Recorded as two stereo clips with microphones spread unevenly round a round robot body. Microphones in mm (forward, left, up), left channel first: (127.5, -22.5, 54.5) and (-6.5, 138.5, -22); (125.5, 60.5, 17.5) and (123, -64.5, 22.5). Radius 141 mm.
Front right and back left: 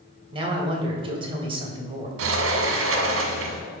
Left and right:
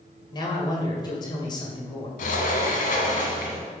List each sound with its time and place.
0.3 s a man speaking: 125° left, 1.8 m
2.2 s a sliding door: 120° left, 1.0 m